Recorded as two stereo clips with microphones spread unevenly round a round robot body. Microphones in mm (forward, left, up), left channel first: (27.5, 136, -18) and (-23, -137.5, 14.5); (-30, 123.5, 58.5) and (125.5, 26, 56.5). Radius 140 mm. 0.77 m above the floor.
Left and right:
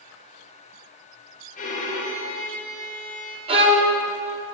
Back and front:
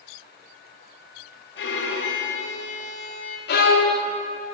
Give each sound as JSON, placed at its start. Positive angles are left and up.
{"t": 1.6, "sound": "a violin", "azimuth_deg": 140, "distance_m": 1.9}
{"t": 3.5, "sound": "a violin", "azimuth_deg": -175, "distance_m": 1.4}